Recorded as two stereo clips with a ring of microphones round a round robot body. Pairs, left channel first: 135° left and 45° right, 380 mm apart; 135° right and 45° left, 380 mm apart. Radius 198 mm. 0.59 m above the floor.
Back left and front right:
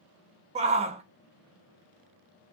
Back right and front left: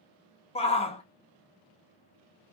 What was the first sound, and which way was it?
A shout, 90° right.